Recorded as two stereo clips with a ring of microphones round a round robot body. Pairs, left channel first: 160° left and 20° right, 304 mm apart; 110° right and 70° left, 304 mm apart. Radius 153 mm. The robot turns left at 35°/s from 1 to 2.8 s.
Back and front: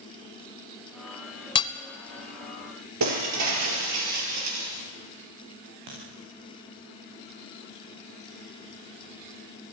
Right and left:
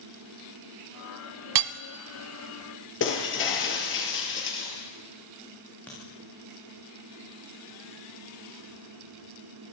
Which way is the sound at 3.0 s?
60° right.